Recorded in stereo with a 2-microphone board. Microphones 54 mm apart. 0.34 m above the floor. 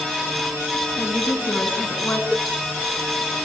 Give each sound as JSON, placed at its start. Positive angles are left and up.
{"t": 1.0, "sound": "a woman speaking", "side_deg": 45, "distance_m": 3.0}
{"t": 2.3, "sound": "a cowbell", "side_deg": 15, "distance_m": 0.9}